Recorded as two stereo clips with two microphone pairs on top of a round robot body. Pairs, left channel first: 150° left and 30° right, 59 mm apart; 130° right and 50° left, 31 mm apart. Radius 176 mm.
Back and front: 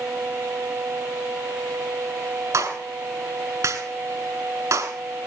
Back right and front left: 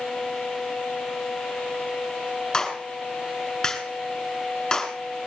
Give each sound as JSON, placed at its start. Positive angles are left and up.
{"t": 2.5, "sound": "a clap", "azimuth_deg": -60, "distance_m": 5.5}